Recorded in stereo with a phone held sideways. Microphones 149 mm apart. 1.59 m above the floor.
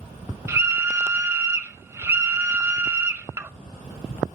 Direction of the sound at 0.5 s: 20° right (ahead or behind).